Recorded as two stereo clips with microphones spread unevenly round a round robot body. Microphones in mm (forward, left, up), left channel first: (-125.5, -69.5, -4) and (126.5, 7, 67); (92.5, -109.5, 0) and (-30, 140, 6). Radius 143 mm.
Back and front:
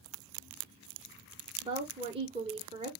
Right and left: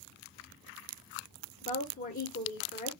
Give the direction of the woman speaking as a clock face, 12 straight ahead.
2 o'clock.